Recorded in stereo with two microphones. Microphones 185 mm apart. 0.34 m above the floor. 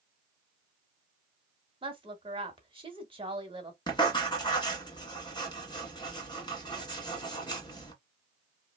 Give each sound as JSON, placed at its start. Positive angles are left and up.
{"t": 1.8, "sound": "a woman speaking", "side_deg": -30, "distance_m": 1.1}
{"t": 3.9, "sound": "writing", "side_deg": 25, "distance_m": 1.4}